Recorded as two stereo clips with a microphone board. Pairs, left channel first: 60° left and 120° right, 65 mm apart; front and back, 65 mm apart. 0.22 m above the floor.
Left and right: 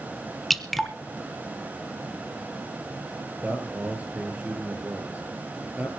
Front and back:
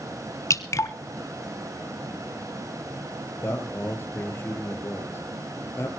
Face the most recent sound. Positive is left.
turn(degrees=-55)